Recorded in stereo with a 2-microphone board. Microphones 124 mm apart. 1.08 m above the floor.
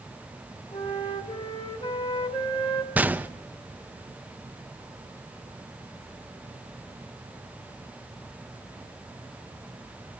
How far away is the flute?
About 1.8 m.